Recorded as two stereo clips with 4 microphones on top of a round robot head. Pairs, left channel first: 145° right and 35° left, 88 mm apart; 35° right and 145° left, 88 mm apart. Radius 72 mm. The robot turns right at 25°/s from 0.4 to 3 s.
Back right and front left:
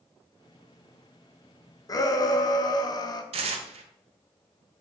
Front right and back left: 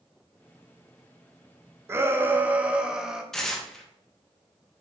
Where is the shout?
165° right, 0.8 m; by 3.2 s 140° right, 0.8 m.